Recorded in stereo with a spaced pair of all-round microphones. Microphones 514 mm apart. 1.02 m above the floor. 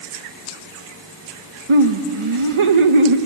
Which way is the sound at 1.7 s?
70° right (ahead or behind).